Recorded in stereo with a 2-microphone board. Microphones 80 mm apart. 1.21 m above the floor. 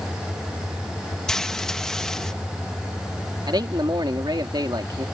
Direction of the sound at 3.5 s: 65° right (ahead or behind).